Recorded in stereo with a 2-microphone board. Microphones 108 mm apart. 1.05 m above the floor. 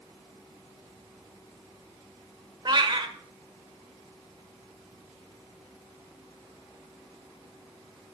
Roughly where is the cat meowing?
Right.